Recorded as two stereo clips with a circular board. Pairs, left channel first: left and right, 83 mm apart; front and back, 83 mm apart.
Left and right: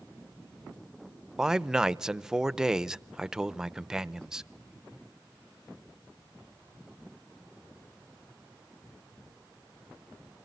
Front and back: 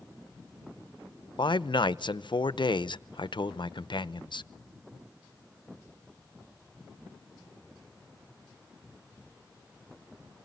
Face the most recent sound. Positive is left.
turn(degrees=-10)